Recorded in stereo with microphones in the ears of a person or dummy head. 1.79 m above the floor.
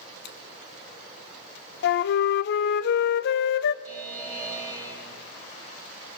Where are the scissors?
65° left (ahead or behind), 1.4 m.